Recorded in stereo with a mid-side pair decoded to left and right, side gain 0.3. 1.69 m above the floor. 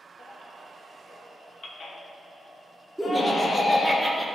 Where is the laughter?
5° right, 1.9 m.